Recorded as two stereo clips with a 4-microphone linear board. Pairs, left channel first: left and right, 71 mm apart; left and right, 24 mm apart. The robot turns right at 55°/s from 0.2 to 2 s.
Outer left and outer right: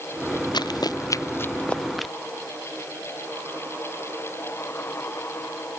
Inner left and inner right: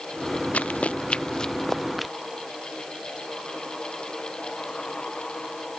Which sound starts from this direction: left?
Running footsteps, at 0.5 s.